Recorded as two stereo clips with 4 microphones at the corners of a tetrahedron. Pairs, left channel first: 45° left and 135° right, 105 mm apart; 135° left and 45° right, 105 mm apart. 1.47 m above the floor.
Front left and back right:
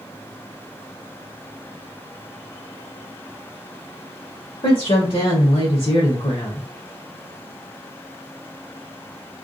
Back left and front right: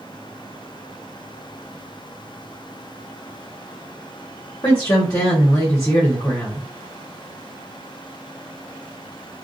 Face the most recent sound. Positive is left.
turn(degrees=80)